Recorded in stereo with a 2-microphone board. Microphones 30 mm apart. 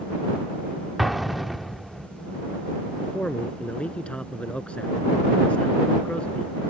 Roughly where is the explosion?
Centre.